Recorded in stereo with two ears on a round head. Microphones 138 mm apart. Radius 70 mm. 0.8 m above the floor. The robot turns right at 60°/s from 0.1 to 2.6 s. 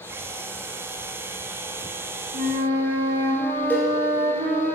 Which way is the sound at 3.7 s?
15° left (ahead or behind).